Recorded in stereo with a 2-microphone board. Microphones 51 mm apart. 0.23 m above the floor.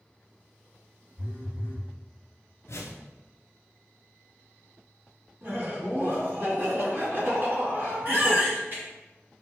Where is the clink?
I don't hear a clink.